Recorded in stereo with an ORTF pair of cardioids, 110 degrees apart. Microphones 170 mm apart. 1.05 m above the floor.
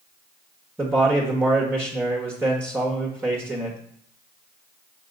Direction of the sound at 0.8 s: 10° right.